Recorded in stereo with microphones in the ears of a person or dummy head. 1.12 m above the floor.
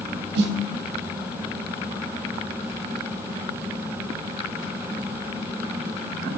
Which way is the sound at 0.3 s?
60° right (ahead or behind).